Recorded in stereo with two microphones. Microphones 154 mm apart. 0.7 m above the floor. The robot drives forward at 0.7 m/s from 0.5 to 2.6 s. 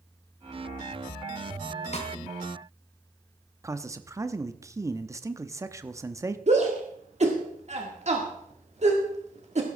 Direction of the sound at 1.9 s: 45° left (ahead or behind).